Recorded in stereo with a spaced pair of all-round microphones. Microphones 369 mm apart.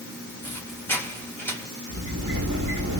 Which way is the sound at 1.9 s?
50° right (ahead or behind).